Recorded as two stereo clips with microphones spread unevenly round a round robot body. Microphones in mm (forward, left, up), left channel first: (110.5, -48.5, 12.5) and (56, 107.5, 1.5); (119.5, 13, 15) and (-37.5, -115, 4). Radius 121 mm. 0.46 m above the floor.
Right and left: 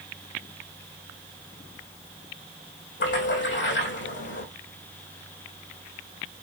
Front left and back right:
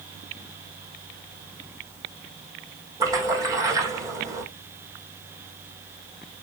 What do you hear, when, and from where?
3.0 s a splash: 65° right, 4 m